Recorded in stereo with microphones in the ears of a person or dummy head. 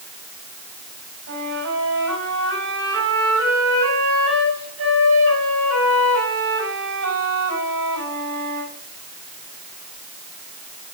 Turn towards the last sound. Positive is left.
turn(degrees=-85)